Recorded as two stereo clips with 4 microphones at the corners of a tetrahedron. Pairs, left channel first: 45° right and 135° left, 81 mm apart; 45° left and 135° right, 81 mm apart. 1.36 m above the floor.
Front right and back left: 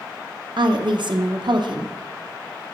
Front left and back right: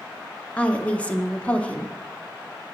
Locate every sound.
0.6 s a woman speaking: 120° left, 0.8 m